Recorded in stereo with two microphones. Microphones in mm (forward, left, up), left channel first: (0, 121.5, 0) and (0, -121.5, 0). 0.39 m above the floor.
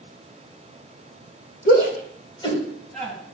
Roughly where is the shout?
Left.